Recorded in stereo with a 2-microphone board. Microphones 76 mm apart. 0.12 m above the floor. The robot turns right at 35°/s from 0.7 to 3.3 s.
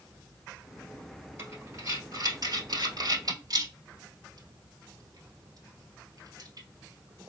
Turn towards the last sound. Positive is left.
turn(degrees=-55)  # may be behind; listen again after turning